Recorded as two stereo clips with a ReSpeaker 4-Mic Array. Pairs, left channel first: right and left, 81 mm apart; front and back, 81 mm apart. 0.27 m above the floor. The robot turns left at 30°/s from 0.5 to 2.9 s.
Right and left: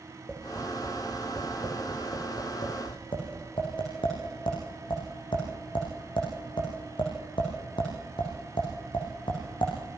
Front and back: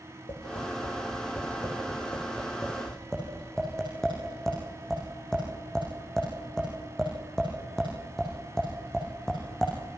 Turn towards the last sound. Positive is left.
turn(degrees=-80)